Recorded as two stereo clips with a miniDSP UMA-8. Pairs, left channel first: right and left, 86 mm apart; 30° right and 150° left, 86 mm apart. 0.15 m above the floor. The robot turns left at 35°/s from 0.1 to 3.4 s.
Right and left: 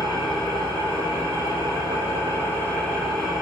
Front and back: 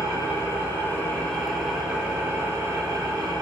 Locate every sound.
0.0 s an engine running: 70° right, 1.2 m; by 3.4 s 175° left, 1.2 m